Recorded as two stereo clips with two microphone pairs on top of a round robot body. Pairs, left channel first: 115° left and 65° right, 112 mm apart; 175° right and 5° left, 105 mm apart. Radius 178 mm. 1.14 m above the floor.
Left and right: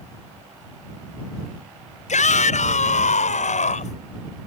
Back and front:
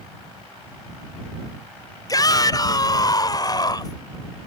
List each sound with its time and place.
2.1 s a shout: 130° left